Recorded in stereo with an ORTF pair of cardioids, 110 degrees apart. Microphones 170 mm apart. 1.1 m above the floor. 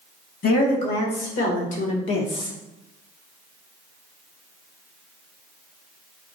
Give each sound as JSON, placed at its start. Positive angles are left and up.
{"t": 0.4, "sound": "a woman speaking", "azimuth_deg": 65, "distance_m": 1.8}